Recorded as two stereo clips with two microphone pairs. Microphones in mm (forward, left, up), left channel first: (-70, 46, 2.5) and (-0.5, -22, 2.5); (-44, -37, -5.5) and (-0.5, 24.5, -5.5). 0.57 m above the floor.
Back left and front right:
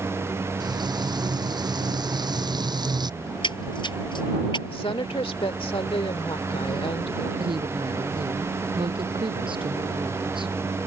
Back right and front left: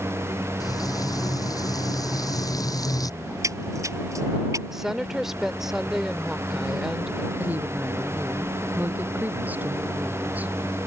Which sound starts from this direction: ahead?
A woman speaking, at 7.4 s.